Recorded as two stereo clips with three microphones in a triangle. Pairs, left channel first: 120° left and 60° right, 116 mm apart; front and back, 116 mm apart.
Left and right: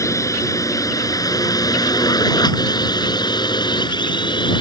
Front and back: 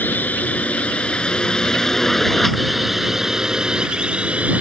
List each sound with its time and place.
0.0 s a drone: 70° left; by 4.6 s 110° left